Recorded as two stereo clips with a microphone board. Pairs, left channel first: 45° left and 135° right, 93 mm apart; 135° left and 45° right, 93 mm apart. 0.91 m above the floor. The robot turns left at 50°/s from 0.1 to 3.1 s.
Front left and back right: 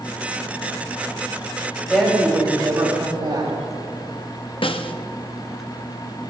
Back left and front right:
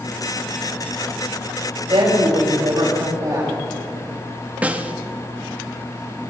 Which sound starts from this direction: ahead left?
A snare drum, at 4.6 s.